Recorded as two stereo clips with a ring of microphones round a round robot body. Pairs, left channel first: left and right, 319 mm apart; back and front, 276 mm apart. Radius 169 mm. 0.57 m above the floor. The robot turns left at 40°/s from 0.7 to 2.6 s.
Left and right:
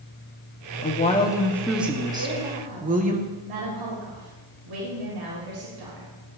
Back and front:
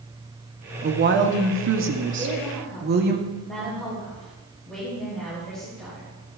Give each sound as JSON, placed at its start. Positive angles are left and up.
{"t": 0.8, "sound": "a woman speaking", "azimuth_deg": 35, "distance_m": 1.5}
{"t": 2.2, "sound": "a woman speaking", "azimuth_deg": -75, "distance_m": 3.5}